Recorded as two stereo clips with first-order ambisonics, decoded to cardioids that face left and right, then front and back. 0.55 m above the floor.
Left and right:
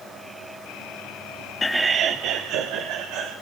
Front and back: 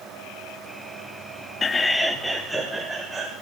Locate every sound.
1.6 s laughter: 40° left, 0.6 m; by 3.3 s 100° right, 2.5 m